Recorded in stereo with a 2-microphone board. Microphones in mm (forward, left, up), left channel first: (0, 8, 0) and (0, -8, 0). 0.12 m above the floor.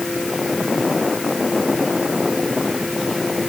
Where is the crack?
No crack in this recording.